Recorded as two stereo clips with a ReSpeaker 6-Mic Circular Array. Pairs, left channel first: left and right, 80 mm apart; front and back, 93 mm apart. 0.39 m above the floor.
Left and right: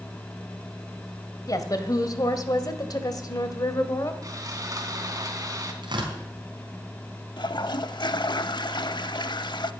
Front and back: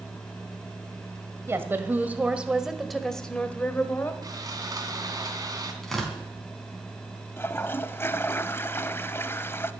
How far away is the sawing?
About 2.5 m.